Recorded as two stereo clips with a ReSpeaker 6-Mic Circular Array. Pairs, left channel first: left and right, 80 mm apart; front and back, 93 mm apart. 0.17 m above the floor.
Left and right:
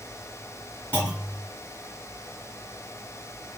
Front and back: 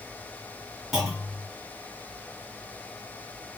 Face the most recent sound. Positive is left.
turn(degrees=95)